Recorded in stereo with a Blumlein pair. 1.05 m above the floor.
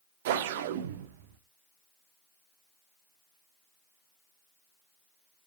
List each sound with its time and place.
0.2 s a whoosh: 55° right, 1.1 m